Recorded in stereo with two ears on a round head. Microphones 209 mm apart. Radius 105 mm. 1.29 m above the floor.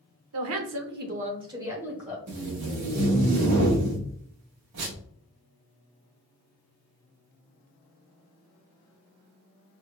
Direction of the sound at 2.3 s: 85° right.